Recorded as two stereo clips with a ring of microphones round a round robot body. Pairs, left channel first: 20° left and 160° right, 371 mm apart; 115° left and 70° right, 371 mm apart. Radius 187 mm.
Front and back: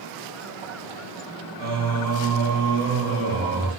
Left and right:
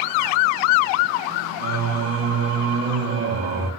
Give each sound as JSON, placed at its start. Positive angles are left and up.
{"t": 1.6, "sound": "singing", "azimuth_deg": -90, "distance_m": 2.0}